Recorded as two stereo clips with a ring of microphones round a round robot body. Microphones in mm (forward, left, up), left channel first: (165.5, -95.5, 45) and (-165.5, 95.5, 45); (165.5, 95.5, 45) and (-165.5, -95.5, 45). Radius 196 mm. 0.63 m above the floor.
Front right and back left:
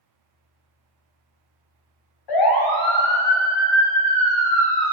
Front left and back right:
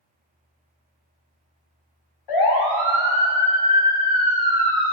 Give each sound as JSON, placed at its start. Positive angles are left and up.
{"t": 2.3, "sound": "a siren", "azimuth_deg": 0, "distance_m": 4.0}